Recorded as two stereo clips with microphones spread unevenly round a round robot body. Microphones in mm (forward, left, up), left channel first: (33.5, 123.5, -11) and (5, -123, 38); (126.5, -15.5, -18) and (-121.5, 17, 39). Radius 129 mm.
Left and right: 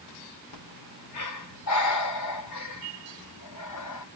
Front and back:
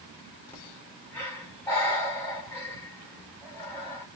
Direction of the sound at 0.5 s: 75° left.